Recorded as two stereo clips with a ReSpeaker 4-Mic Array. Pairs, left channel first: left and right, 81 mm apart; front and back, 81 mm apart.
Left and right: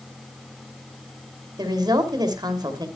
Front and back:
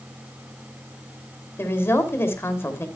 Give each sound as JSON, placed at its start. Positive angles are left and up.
{"t": 1.6, "sound": "a woman speaking", "azimuth_deg": -60, "distance_m": 2.5}